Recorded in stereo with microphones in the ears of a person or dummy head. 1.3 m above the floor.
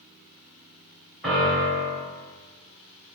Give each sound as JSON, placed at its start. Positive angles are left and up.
{"t": 1.2, "sound": "a piano", "side_deg": 0, "distance_m": 2.5}